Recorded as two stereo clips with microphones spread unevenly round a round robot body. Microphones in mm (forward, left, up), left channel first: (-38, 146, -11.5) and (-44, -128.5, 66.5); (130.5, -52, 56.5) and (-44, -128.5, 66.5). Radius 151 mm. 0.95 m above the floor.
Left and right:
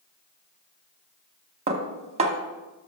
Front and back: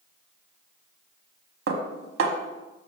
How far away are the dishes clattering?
About 1.0 m.